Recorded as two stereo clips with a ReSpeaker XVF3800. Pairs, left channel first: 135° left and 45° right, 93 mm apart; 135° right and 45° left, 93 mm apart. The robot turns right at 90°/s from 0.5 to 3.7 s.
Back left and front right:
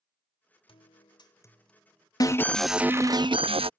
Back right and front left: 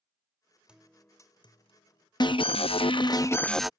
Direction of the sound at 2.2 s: 175° right.